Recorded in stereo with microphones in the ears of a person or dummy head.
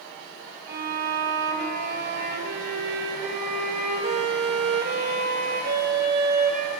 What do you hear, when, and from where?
0.7 s a violin: 45° right (ahead or behind), 1.4 m